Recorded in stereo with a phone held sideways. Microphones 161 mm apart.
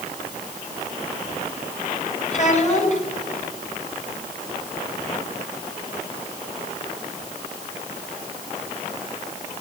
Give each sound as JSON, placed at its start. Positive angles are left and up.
{"t": 2.3, "sound": "a child speaking", "side_deg": 45, "distance_m": 5.5}